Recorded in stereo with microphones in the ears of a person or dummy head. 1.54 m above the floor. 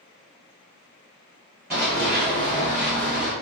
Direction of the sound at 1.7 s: 5° right (ahead or behind).